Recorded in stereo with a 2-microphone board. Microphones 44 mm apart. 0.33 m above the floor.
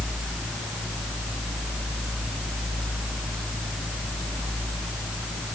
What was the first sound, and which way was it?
Only background noise.